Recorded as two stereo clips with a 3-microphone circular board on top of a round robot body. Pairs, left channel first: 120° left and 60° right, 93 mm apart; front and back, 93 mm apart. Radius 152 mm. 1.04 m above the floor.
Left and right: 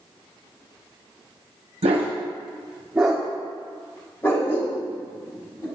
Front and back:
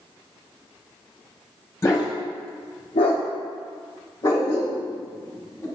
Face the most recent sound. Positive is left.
turn(degrees=65)